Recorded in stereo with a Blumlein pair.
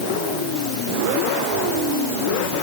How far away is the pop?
No pop in this recording.